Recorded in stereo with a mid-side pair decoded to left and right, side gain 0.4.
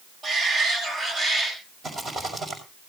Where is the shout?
60° right, 8 m; by 1.6 s 55° right, 8.5 m.